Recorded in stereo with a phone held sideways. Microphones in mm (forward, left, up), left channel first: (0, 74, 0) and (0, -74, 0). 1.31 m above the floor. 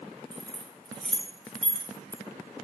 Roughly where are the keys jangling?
Centre.